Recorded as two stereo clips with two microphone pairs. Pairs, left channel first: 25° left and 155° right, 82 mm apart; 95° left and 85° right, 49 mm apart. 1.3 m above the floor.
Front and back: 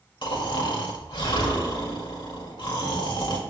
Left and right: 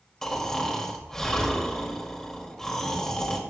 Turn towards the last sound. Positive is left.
turn(degrees=10)